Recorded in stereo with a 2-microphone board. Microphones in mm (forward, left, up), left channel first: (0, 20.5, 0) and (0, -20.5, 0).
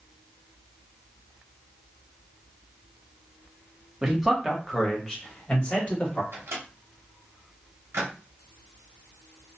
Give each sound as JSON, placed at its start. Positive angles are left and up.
{"t": 4.0, "sound": "a man speaking", "side_deg": -15, "distance_m": 0.9}
{"t": 6.3, "sound": "a microwave", "side_deg": -90, "distance_m": 0.8}